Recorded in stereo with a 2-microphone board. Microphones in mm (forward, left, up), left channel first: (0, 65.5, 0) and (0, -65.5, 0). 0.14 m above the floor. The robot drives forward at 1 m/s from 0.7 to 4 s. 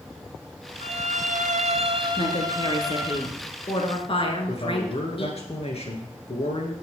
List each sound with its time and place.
0.8 s a violin: 50° right (ahead or behind), 0.8 m; by 3.2 s 20° right (ahead or behind), 1.9 m
2.2 s a woman speaking: 40° left (ahead or behind), 2 m; by 5.4 s 45° left (ahead or behind), 1.9 m
4.5 s a man speaking: 50° left (ahead or behind), 2.5 m